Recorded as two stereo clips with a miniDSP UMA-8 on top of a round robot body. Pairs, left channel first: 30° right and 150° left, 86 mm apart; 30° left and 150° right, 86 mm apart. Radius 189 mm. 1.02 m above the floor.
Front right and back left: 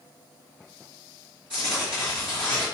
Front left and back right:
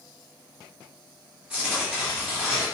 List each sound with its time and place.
1.5 s tearing paper: 130° left, 1.1 m